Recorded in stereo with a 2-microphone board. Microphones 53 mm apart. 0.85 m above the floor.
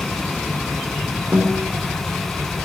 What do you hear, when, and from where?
1.3 s a guitar: 70° right (ahead or behind), 3 m